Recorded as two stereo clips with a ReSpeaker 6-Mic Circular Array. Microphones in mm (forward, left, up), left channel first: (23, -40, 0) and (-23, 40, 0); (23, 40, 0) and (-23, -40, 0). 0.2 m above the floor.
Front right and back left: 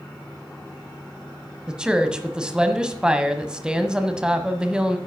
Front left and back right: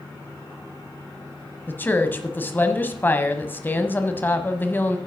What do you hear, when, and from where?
1.7 s a woman speaking: 60° left, 1.0 m